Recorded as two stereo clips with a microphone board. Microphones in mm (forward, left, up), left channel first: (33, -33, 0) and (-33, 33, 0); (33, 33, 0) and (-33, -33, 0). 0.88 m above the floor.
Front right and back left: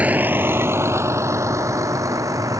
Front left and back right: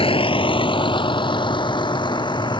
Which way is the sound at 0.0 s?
60° left.